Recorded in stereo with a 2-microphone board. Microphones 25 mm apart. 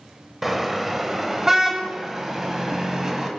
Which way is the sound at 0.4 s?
10° right (ahead or behind).